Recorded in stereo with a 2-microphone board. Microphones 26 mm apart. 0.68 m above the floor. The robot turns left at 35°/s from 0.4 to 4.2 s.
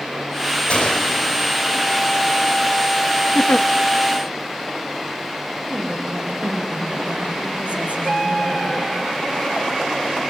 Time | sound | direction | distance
0.7 | a gunshot | 45° left (ahead or behind) | 3 m
3.4 | a giggle | 75° left (ahead or behind) | 0.5 m
5.7 | a woman speaking | 70° right (ahead or behind) | 4 m